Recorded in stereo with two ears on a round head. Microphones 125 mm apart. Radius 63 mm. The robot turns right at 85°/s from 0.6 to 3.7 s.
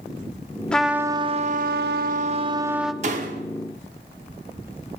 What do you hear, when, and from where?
0.7 s a trumpet: 170° left, 0.5 m; by 2.9 s straight ahead, 0.5 m
3.0 s a door slam: 110° right, 1.0 m; by 3.4 s 75° right, 1.0 m